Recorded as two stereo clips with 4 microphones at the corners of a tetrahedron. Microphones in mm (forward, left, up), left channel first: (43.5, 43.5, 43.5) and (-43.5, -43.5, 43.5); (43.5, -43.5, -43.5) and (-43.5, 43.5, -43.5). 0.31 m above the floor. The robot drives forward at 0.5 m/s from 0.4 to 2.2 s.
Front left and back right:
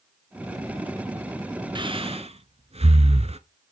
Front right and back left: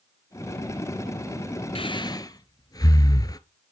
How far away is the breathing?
About 0.7 m.